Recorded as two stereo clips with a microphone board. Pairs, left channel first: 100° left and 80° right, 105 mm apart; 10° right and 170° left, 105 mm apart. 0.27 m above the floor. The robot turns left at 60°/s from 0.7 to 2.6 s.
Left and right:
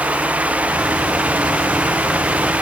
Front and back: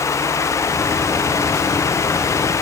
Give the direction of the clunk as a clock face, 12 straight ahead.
I don't hear a clunk.